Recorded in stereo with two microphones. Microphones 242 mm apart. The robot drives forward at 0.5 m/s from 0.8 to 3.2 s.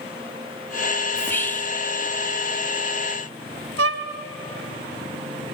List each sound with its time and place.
1.1 s whispering: 10° left (ahead or behind), 0.5 m; by 1.8 s 5° left (ahead or behind), 0.7 m
3.8 s a violin: 70° right (ahead or behind), 2 m